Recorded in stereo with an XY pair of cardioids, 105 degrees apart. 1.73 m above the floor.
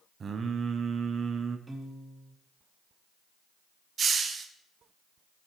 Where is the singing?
45° right, 0.9 m.